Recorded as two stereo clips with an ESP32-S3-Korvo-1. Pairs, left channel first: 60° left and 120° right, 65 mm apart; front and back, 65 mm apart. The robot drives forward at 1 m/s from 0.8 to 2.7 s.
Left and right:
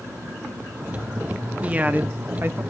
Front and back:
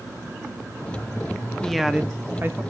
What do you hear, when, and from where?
1.6 s a woman speaking: 75° right, 1.0 m; by 2.6 s 150° right, 1.3 m